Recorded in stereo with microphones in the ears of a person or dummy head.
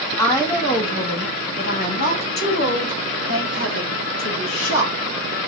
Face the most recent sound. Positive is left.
turn(degrees=80)